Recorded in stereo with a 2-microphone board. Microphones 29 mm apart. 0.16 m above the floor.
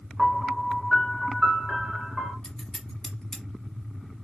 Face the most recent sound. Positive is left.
turn(degrees=25)  # may be behind; listen again after turning